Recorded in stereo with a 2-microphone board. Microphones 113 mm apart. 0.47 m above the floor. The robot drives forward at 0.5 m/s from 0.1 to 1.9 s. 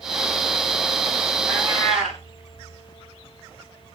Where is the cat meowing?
Centre (ahead or behind), 6 m.